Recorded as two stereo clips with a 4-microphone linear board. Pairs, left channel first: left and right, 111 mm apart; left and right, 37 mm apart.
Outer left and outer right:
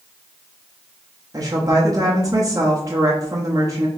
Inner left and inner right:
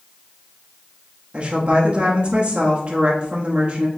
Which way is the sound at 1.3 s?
30° right (ahead or behind).